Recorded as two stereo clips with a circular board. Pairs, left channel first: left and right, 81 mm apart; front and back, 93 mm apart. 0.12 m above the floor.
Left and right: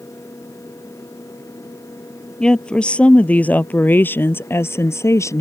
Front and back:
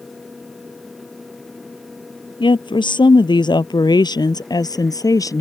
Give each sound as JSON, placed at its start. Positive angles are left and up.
{"t": 2.4, "sound": "a woman speaking", "azimuth_deg": 10}